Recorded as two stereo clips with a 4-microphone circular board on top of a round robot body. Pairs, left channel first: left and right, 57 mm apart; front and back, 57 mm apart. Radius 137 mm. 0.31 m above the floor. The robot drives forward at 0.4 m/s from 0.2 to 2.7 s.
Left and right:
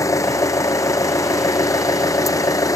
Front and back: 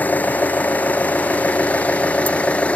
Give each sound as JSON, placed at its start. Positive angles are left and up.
{"t": 0.0, "sound": "an engine running", "azimuth_deg": 65}